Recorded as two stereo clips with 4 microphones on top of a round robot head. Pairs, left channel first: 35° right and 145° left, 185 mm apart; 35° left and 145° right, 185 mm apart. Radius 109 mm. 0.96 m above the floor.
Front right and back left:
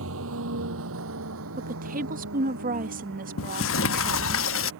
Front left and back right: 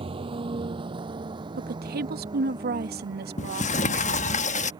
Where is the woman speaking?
175° right.